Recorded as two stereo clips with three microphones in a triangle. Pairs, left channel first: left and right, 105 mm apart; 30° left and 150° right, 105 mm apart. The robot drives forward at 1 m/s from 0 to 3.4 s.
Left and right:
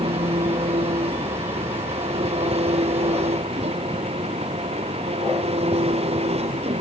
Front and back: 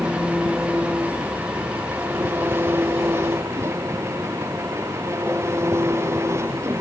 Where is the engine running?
70° right; by 6.8 s 85° right.